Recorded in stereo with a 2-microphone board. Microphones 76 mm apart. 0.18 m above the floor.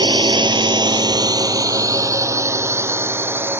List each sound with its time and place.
0.0 s a drone: 70° right (ahead or behind); by 3.6 s 25° right (ahead or behind)